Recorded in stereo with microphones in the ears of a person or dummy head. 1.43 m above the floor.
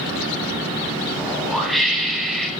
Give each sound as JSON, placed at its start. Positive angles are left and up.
{"t": 1.2, "sound": "a whoosh", "side_deg": 0, "distance_m": 5.0}